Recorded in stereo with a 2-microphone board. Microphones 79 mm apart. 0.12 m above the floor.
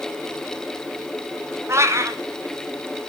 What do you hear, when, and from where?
1.7 s a cat meowing: 35° right (ahead or behind), 1.1 m